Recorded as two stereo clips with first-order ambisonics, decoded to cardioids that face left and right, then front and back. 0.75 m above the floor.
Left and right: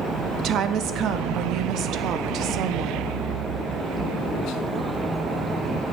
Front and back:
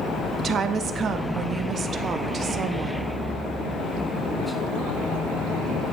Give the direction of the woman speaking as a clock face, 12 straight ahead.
4 o'clock.